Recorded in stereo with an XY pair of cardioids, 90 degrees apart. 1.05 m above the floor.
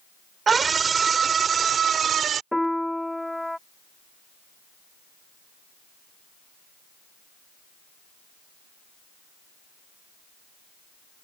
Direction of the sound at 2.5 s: 5° left.